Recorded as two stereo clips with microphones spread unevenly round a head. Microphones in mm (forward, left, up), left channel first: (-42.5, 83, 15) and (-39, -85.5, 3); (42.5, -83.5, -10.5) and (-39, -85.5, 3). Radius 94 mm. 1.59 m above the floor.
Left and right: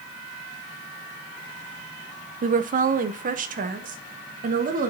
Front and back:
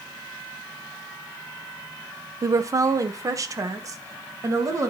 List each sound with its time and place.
2.4 s a woman speaking: 130° right, 0.7 m